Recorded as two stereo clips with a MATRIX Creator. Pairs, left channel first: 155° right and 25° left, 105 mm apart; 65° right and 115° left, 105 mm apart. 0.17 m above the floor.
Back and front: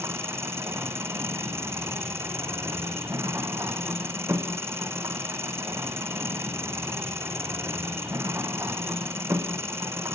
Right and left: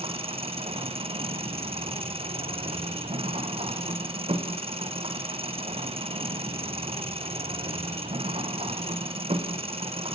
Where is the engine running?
90° left, 3 m.